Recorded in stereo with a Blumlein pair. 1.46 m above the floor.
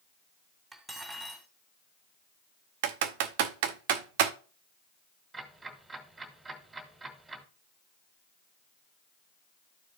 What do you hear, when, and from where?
0.7 s cutlery clinking: 10° right, 2 m
2.8 s typing on a keyboard: 50° right, 0.6 m
5.3 s ticking: 10° right, 1.8 m